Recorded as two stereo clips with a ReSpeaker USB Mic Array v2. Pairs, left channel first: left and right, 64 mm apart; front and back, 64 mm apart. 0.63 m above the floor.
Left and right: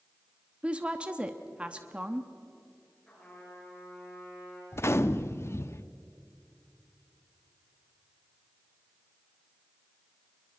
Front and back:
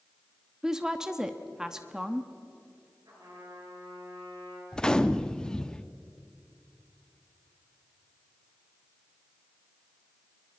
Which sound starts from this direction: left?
A gunshot, at 4.7 s.